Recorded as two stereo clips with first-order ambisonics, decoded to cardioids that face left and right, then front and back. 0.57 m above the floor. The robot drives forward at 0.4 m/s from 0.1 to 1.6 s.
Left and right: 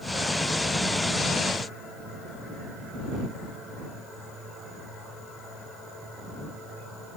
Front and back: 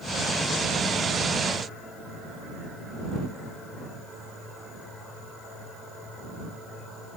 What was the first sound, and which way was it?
Only background noise.